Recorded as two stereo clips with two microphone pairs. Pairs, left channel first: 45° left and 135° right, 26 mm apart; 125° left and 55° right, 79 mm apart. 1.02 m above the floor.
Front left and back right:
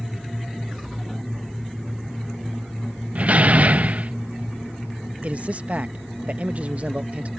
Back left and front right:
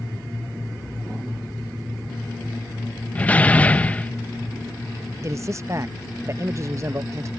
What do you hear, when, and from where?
3.1 s a door slam: 160° right
5.2 s a man speaking: 105° right